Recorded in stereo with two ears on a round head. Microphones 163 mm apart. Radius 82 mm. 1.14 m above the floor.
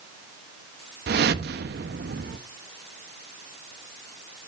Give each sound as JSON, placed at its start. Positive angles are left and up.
{"t": 1.1, "sound": "a whoosh", "side_deg": -60, "distance_m": 0.8}